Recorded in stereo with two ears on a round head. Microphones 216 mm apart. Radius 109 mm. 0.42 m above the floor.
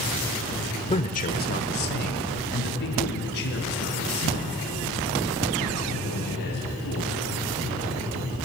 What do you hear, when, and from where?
0.9 s a man speaking: 25° left (ahead or behind), 1.0 m; by 7.2 s 45° left (ahead or behind), 8.5 m